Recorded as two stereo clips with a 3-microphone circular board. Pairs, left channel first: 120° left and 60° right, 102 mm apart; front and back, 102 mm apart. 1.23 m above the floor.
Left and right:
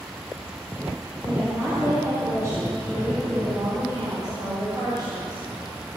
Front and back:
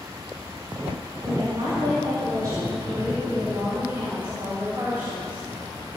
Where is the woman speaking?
130° right, 6 m; by 5.4 s 105° right, 5.5 m.